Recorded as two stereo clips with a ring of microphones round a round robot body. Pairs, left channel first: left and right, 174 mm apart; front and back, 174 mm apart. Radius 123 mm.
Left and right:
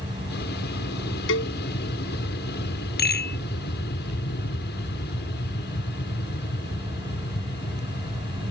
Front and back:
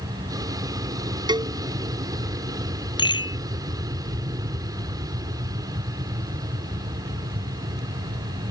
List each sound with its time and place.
0.0 s an aircraft: 115° left
1.3 s a cowbell: 115° left
3.0 s a rattle: 65° left